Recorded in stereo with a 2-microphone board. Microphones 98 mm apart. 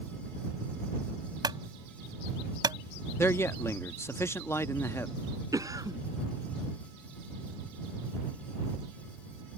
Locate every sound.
1.4 s a clunk: 45° right (ahead or behind)
3.2 s a man speaking: 25° left (ahead or behind)
5.5 s a cough: 35° right (ahead or behind)